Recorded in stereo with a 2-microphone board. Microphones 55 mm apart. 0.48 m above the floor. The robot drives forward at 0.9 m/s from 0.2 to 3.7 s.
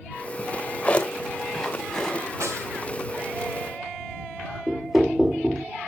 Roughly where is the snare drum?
Right.